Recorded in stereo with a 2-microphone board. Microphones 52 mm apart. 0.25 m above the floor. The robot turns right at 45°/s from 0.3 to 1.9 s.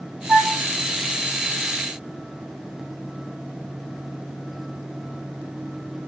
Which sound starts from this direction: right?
A flute, at 0.3 s.